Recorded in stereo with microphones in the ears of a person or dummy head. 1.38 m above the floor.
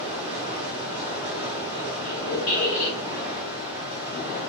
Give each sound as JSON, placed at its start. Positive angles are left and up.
{"t": 0.0, "sound": "running water", "side_deg": -25, "distance_m": 1.0}
{"t": 2.0, "sound": "a squeak", "side_deg": 45, "distance_m": 1.2}